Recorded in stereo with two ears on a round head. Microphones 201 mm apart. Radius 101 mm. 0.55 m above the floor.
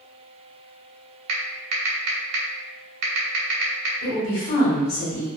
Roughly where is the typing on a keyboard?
Right.